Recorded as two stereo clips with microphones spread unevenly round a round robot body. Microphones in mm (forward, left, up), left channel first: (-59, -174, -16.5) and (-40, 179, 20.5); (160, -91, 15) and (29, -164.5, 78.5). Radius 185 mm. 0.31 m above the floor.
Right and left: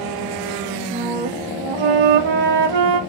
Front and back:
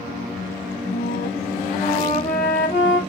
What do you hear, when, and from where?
0.9 s a flute: 90° left, 1.0 m